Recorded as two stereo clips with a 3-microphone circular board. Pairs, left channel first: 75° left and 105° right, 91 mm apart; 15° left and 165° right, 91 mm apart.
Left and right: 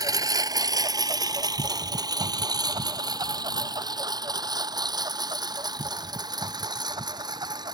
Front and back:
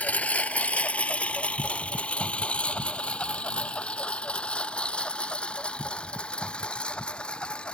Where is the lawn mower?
60° right; by 7.8 s 65° right.